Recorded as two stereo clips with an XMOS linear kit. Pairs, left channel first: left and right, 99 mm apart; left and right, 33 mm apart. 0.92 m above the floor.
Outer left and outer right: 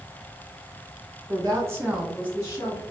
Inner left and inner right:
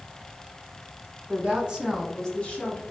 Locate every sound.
1.3 s a woman speaking: 40° right (ahead or behind), 1.2 m; by 2.8 s 50° left (ahead or behind), 1.0 m